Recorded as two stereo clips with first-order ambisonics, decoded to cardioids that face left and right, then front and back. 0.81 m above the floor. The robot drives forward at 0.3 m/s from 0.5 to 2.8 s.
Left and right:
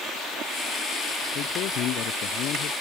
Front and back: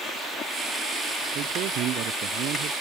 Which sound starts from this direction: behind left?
A man speaking, at 1.4 s.